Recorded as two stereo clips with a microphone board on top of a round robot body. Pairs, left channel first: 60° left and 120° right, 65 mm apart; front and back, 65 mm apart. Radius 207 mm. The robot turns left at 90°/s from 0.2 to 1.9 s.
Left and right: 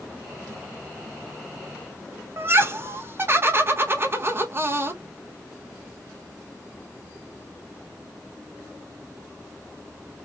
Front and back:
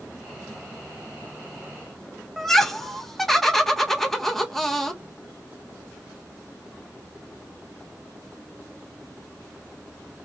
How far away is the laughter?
About 1.4 m.